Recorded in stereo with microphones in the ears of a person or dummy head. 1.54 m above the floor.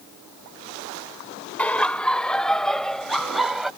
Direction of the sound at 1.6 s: 5° left (ahead or behind).